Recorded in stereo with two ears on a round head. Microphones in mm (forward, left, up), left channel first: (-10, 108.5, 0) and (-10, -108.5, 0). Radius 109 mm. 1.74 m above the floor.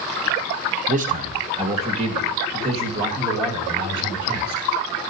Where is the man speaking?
35° right (ahead or behind), 0.7 m; by 4.6 s 20° right (ahead or behind), 3.5 m.